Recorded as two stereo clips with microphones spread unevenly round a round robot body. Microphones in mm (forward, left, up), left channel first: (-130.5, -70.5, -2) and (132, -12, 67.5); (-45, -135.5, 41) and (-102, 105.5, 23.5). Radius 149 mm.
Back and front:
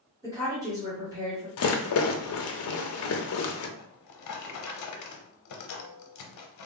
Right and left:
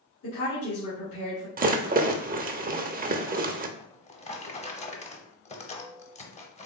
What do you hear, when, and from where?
0.2 s a woman speaking: 75° right, 1.8 m
1.6 s a rattle: 160° left, 0.6 m
3.8 s a drawer: 140° right, 0.8 m